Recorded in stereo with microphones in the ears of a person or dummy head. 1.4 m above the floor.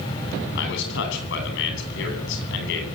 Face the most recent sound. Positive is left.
turn(degrees=70)  # may be behind; listen again after turning